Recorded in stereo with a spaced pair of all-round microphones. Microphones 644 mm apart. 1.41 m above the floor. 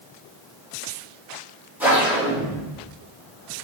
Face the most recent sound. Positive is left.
turn(degrees=-5)  # may be behind; listen again after turning